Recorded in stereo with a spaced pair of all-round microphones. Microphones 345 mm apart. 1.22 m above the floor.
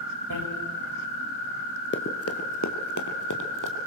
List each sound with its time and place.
0.3 s a bicycle bell: 80° right, 4 m
1.9 s running footsteps: 35° left (ahead or behind), 1.4 m; by 3.9 s 65° left (ahead or behind), 3 m